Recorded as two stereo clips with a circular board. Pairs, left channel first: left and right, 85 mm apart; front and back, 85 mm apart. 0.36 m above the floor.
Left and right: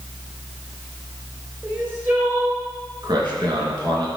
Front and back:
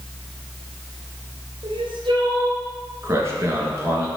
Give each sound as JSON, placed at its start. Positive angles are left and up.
{"t": 1.6, "sound": "crying", "azimuth_deg": -155, "distance_m": 3.0}
{"t": 3.0, "sound": "a man speaking", "azimuth_deg": -125, "distance_m": 3.5}